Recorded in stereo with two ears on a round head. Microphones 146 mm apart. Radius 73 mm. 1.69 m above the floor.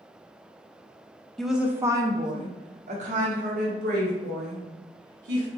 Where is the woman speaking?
Centre (ahead or behind), 0.7 m; by 5.5 s 70° right (ahead or behind), 2.5 m.